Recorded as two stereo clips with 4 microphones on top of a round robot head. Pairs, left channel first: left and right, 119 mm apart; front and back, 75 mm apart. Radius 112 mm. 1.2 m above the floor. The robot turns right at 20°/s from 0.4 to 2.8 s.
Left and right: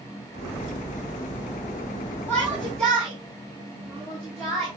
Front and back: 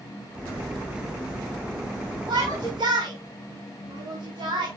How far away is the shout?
About 4 m.